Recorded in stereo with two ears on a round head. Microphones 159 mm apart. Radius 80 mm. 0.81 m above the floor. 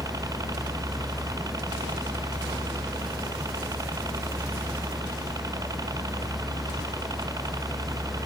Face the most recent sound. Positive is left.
turn(degrees=-20)  # may be behind; listen again after turning